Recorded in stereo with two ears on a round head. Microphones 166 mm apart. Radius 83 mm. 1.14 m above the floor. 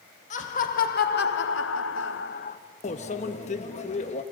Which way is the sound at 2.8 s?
40° left (ahead or behind).